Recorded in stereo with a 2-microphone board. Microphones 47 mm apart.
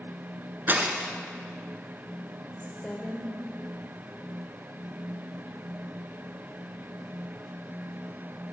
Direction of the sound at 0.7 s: 45° right (ahead or behind).